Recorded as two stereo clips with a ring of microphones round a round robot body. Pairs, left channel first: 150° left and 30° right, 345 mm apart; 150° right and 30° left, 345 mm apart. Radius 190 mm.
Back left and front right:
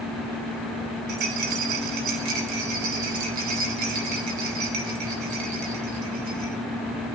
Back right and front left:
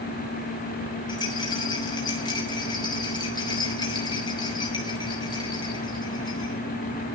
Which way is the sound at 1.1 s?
70° right.